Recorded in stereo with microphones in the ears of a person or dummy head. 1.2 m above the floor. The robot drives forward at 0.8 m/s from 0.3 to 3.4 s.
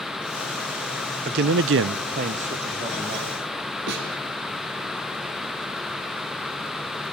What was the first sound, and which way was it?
A man speaking, 45° right (ahead or behind).